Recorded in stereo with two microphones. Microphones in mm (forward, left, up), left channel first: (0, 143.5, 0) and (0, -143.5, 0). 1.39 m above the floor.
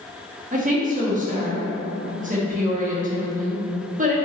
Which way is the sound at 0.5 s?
30° right (ahead or behind).